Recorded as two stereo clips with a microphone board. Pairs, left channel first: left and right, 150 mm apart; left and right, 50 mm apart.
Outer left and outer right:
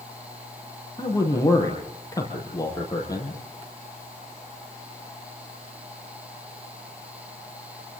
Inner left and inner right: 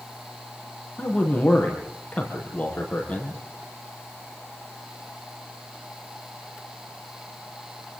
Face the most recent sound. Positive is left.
turn(degrees=25)  # may be behind; listen again after turning